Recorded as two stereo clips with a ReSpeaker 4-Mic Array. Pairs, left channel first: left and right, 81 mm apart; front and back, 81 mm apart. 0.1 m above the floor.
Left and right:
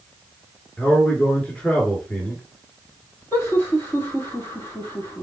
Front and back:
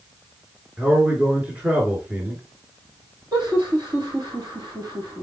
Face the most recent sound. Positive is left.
turn(degrees=150)